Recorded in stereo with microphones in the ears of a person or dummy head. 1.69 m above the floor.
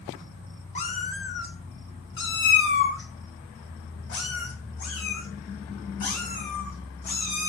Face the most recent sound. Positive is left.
turn(degrees=55)  # may be behind; listen again after turning